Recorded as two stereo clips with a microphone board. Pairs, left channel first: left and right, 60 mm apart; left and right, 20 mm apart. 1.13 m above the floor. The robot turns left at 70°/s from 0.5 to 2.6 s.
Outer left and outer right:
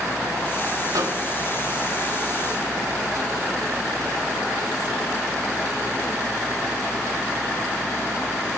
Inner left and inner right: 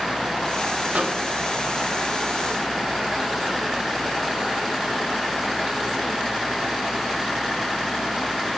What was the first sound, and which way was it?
A microwave, 80° right.